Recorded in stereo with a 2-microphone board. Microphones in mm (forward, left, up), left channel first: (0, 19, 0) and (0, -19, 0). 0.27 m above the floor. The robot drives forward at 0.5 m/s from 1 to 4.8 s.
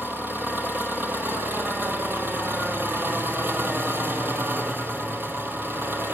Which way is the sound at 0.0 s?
65° right (ahead or behind).